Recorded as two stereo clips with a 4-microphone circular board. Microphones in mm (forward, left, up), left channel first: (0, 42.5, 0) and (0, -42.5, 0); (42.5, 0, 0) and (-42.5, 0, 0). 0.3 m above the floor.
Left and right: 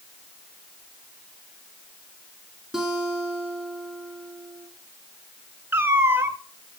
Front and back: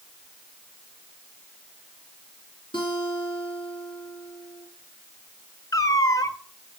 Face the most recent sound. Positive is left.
turn(degrees=-30)